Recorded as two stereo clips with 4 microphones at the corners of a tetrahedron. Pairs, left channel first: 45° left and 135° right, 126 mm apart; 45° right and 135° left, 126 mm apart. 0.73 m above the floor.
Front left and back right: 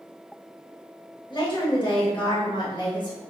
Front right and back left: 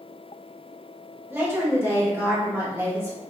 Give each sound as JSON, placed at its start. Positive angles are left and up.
{"t": 1.3, "sound": "a woman speaking", "azimuth_deg": 75, "distance_m": 0.9}